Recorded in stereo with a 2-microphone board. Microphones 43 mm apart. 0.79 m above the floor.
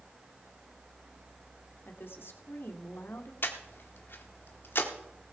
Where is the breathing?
55° left (ahead or behind), 1.5 m.